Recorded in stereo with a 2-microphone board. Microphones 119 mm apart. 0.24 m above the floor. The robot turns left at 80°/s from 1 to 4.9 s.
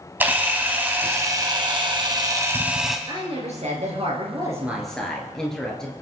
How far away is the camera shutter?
About 1.8 m.